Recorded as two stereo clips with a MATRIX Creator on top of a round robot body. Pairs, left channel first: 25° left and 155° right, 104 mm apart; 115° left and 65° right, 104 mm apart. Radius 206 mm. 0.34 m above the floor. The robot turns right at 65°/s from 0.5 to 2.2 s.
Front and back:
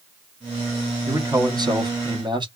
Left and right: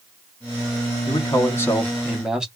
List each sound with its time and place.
1.1 s a man speaking: 140° left, 1.5 m; by 2.5 s 145° right, 1.5 m